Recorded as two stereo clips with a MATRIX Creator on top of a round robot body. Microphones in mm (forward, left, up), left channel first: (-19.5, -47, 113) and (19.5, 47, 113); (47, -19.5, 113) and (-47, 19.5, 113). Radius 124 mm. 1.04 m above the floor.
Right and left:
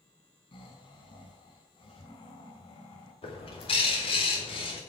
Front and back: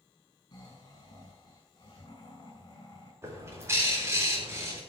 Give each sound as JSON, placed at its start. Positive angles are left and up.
{"t": 0.5, "sound": "snoring", "azimuth_deg": -75, "distance_m": 6.0}
{"t": 3.2, "sound": "a bird", "azimuth_deg": -140, "distance_m": 3.5}